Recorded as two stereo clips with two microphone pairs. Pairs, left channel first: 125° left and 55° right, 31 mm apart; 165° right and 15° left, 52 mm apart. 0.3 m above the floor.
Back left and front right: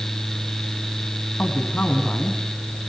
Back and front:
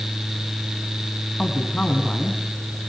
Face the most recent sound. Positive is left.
turn(degrees=135)